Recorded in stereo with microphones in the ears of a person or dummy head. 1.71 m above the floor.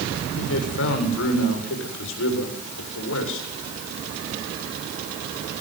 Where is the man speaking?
70° left (ahead or behind), 7.5 m.